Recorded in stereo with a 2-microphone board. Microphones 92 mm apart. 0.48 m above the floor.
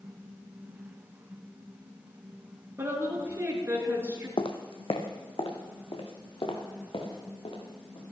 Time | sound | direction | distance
2.8 | a woman speaking | 25° right (ahead or behind) | 6 m
4.4 | footsteps | 70° left (ahead or behind) | 1.3 m